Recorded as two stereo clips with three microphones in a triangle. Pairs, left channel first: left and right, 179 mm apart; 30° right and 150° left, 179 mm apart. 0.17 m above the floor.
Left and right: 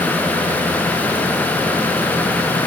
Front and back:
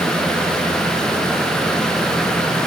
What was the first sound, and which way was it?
Only background noise.